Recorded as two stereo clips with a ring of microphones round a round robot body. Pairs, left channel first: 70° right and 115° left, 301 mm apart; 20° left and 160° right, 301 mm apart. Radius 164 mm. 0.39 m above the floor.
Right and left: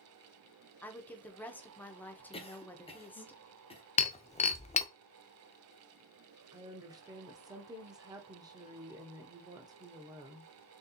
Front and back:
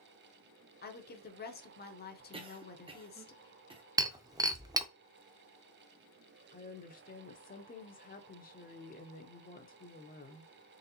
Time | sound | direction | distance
0.8 | a woman speaking | 10° left | 0.9 m
2.3 | a cough | 110° right | 0.9 m
4.0 | breaking glass | 100° right | 0.6 m
6.5 | a woman speaking | 45° left | 0.8 m